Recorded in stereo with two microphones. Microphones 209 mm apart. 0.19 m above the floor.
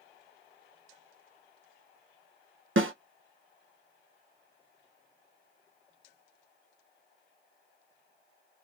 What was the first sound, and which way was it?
A snare drum, 75° right (ahead or behind).